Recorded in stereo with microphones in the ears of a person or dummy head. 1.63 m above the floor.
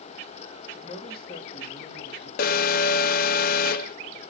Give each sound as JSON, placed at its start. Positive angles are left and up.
{"t": 0.7, "sound": "a man speaking", "side_deg": 35, "distance_m": 4.0}
{"t": 2.4, "sound": "an alarm", "side_deg": 50, "distance_m": 0.7}